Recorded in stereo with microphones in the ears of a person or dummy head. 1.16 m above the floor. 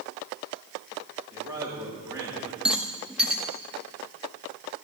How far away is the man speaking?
About 4 m.